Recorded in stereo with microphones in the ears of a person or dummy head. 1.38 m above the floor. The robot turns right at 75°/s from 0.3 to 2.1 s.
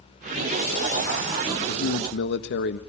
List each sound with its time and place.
1.7 s a man speaking: 75° left, 1.4 m; by 2.8 s 105° left, 1.4 m